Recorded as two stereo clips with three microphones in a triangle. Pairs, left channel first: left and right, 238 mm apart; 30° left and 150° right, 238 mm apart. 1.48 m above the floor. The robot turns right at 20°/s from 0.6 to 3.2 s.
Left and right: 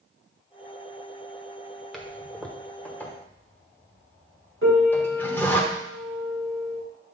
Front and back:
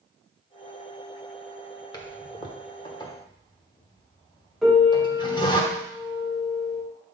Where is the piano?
60° right, 2 m.